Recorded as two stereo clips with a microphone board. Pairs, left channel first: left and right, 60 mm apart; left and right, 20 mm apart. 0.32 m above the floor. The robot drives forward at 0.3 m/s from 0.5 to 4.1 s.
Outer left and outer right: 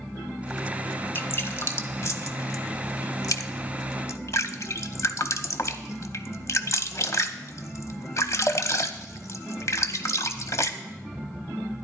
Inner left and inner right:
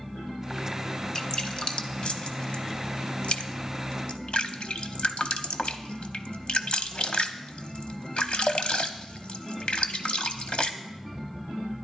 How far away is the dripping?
About 0.9 m.